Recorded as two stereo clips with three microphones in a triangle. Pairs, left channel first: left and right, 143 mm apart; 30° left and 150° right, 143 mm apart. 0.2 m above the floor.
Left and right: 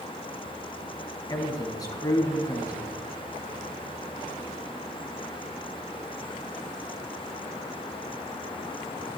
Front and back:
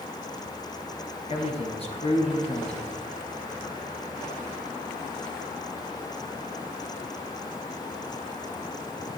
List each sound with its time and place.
1.3 s a man speaking: 40° left, 1.5 m